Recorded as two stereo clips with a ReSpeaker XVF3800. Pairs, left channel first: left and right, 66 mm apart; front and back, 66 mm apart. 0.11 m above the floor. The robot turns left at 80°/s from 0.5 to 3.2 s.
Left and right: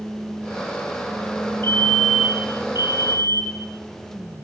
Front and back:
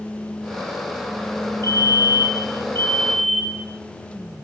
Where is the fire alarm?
40° left, 7 m; by 3.7 s 85° right, 7 m.